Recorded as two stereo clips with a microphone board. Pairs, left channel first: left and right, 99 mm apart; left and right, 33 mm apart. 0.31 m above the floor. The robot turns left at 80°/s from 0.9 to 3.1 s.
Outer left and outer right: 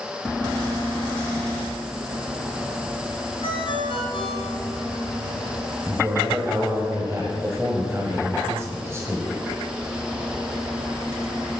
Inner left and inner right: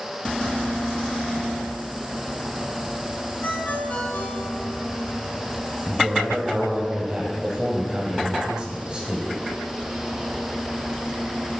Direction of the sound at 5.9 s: 30° right (ahead or behind).